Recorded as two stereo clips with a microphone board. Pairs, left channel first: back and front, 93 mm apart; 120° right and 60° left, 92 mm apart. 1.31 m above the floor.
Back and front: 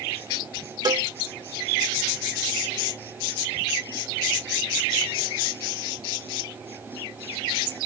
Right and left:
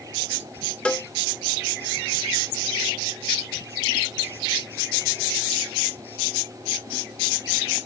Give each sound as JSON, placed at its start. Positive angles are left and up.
{"t": 0.8, "sound": "a cowbell", "azimuth_deg": -45}